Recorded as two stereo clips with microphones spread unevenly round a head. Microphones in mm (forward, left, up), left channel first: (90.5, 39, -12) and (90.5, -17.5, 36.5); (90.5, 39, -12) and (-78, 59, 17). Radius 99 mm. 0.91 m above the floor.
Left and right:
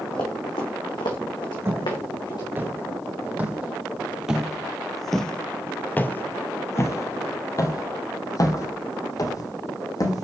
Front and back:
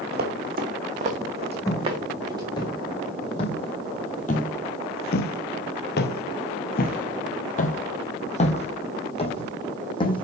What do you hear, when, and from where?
0.1 s running footsteps: 160° left, 2.5 m; by 2.5 s 110° left, 3.5 m
1.6 s footsteps: 85° right, 3 m; by 10.2 s 55° left, 3 m